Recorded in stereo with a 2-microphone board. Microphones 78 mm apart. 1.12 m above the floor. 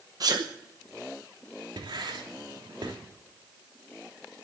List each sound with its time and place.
0.2 s a sneeze: 50° right (ahead or behind), 0.8 m
1.8 s writing: 75° right (ahead or behind), 3 m